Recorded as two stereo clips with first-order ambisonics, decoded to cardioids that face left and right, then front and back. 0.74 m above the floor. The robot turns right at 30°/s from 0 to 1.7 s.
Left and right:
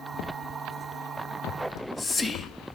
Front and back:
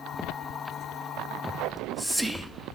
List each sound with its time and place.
1.6 s whispering: 90° left, 0.6 m